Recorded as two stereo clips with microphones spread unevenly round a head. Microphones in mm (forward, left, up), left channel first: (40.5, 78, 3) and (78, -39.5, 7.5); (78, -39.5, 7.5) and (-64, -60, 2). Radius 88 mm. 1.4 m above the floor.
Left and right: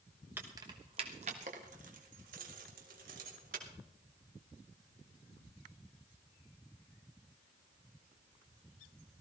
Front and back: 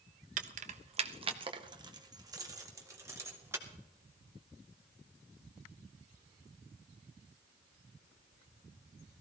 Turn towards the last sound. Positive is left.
turn(degrees=-100)